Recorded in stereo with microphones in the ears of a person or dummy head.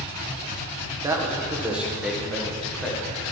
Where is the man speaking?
15° right (ahead or behind), 1.3 m; by 3.1 s 10° left (ahead or behind), 2 m.